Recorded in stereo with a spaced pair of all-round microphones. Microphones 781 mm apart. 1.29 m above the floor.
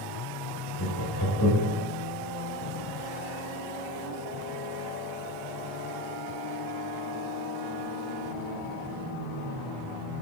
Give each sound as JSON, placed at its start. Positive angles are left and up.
{"t": 0.8, "sound": "laughter", "side_deg": 25, "distance_m": 7.5}